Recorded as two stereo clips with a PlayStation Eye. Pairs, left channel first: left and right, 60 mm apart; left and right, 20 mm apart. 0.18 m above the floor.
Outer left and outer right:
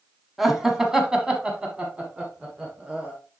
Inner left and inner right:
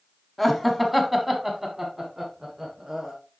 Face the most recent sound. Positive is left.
turn(degrees=-20)  # may be behind; listen again after turning